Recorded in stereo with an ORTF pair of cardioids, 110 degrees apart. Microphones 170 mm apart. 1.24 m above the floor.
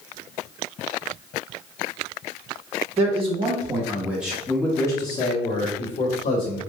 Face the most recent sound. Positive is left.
turn(degrees=60)